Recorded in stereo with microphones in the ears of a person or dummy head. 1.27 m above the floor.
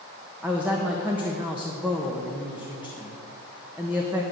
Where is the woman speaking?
10° right (ahead or behind), 1.3 m.